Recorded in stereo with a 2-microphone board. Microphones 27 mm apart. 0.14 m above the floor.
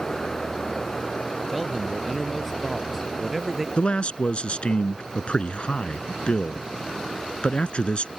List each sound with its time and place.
1.5 s a man speaking: 5° left (ahead or behind); by 3.7 s 15° right (ahead or behind)
3.8 s a man speaking: 45° left (ahead or behind)